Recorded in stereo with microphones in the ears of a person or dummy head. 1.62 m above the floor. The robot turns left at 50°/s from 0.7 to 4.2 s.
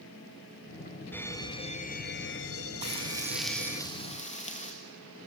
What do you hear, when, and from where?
1.1 s an alarm: 175° left, 1.3 m; by 3.8 s 40° left, 1.3 m
2.8 s frying: 145° right, 3 m; by 4.7 s 145° left, 3 m